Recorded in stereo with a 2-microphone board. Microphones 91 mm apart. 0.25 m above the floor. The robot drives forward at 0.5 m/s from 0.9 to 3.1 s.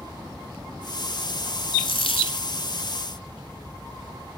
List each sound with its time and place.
1.8 s a dropped coin: 70° left (ahead or behind), 1.0 m; by 2.5 s 75° left (ahead or behind), 0.9 m